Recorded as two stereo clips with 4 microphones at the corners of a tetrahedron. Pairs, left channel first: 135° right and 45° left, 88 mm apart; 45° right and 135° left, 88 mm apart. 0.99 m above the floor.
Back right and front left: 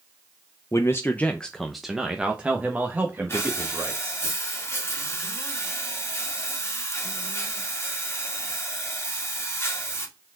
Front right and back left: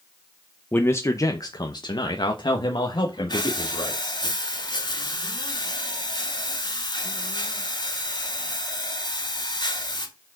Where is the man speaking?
105° right, 0.6 m; by 4.3 s 15° right, 2 m.